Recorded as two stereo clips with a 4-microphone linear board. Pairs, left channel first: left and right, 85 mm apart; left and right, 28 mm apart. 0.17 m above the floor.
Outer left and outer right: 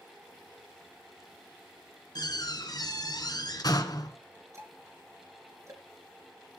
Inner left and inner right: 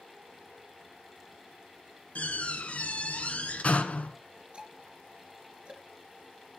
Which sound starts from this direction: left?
A door slam, at 2.1 s.